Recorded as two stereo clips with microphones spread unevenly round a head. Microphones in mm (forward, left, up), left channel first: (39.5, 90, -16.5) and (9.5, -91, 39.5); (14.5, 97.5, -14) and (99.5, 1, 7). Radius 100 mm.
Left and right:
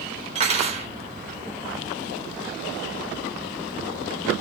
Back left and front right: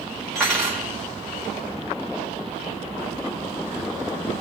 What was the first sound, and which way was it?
Cutlery clinking, 135° right.